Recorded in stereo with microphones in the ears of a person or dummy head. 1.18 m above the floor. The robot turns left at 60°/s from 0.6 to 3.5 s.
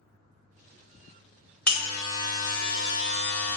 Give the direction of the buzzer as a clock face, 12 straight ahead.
6 o'clock.